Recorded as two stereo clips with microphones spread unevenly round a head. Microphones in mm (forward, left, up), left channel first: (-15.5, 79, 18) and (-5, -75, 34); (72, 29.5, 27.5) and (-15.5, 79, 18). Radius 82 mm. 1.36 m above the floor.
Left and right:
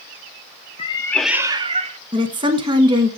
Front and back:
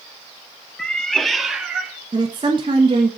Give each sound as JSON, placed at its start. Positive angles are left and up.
{"t": 0.8, "sound": "a cat meowing", "azimuth_deg": 45, "distance_m": 0.6}
{"t": 2.1, "sound": "a woman speaking", "azimuth_deg": -145, "distance_m": 1.4}